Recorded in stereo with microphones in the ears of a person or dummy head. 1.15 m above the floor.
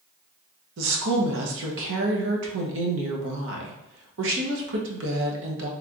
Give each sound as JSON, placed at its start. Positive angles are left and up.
{"t": 0.8, "sound": "a woman speaking", "side_deg": -70, "distance_m": 1.1}